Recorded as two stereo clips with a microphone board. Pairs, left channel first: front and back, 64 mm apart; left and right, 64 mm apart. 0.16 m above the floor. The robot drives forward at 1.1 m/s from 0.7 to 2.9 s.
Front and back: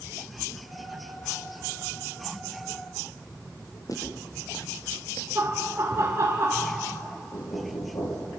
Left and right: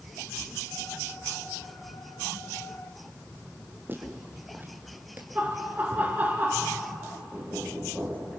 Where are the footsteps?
30° right, 5 m.